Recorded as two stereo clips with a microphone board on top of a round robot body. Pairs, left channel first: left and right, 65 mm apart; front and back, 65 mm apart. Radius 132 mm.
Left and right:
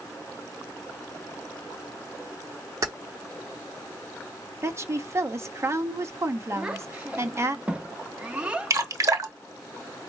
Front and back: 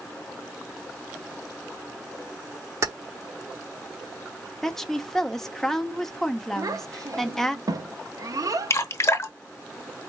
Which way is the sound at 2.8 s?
135° right.